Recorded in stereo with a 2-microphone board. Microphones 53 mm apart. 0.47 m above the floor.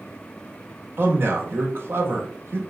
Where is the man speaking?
45° right (ahead or behind), 1.3 m.